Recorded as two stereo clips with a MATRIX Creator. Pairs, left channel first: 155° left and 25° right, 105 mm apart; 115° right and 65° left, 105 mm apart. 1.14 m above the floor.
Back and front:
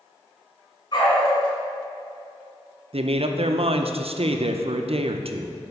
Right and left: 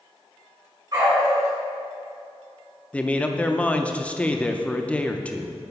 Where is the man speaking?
35° right, 0.5 m.